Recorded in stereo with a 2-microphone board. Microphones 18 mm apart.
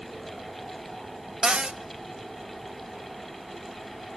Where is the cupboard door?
55° right (ahead or behind), 0.6 m.